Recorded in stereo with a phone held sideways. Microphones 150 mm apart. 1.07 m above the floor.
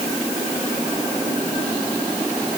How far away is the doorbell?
I don't hear a doorbell.